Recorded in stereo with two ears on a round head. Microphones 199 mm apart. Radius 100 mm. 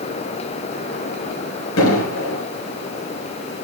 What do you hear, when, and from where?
1.8 s an explosion: 65° left (ahead or behind), 4.5 m